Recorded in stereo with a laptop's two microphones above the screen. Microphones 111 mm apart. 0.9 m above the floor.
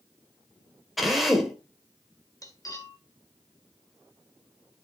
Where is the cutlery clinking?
30° left (ahead or behind), 1.8 m.